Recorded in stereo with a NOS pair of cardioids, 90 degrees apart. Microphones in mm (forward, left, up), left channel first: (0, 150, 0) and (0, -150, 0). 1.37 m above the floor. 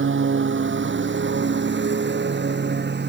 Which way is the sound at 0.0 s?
40° right.